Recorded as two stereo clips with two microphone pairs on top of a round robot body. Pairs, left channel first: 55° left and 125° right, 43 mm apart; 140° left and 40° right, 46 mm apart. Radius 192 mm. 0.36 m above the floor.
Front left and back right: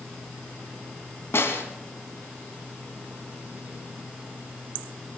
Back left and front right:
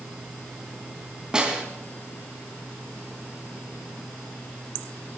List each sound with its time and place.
1.3 s a snare drum: 30° left, 3 m